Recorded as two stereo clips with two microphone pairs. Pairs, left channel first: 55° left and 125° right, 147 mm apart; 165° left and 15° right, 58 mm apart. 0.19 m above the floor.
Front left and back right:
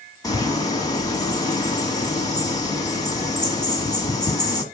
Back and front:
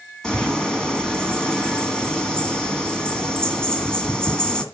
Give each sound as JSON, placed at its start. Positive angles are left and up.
{"t": 0.2, "sound": "a bird", "azimuth_deg": 100, "distance_m": 1.9}